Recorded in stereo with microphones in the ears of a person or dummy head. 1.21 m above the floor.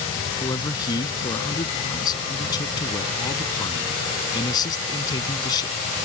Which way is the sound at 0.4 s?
25° left (ahead or behind).